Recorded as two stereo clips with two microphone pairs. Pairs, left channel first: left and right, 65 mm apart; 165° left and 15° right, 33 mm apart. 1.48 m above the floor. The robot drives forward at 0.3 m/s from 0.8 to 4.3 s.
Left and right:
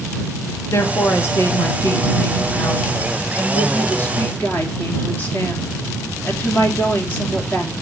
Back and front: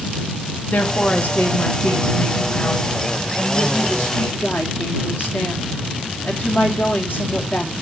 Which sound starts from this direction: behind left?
A woman speaking, at 0.7 s.